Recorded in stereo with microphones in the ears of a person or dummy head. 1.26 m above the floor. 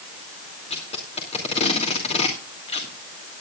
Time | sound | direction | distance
0.7 | tape being pulled | 30° left (ahead or behind) | 3 m